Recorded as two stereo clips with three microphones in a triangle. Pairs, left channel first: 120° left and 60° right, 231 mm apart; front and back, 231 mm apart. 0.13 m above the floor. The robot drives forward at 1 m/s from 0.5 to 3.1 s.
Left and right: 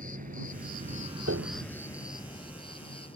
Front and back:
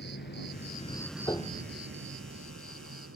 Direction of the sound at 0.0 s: 20° right.